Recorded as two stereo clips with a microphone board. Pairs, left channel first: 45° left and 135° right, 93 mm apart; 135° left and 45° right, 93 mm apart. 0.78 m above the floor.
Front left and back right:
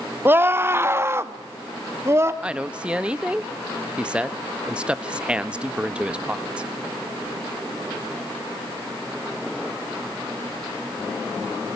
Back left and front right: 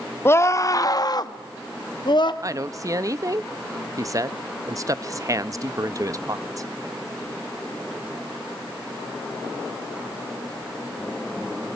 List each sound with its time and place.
0.2 s a scream: 175° left, 0.8 m; by 2.3 s 165° left, 1.8 m
2.4 s a woman speaking: 65° right, 0.7 m